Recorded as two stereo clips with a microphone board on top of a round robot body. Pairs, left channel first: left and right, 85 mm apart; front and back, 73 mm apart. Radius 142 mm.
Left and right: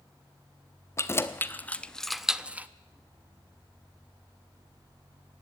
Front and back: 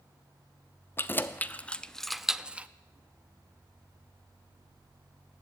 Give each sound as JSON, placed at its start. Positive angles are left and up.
{"t": 1.0, "sound": "keys jangling", "azimuth_deg": 45, "distance_m": 0.9}